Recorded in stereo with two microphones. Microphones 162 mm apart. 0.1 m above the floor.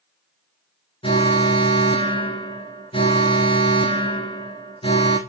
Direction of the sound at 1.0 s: 30° left (ahead or behind).